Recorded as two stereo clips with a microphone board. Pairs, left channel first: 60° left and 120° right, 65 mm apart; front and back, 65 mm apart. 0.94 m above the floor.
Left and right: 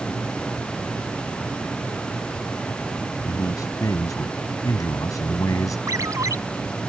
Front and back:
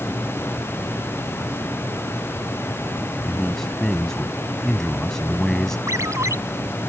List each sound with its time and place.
3.2 s a man speaking: 80° left
5.9 s a ringtone: 150° right